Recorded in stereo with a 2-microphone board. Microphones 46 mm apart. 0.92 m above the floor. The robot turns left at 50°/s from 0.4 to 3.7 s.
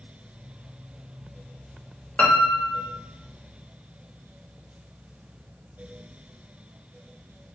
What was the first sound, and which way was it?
A piano, 135° left.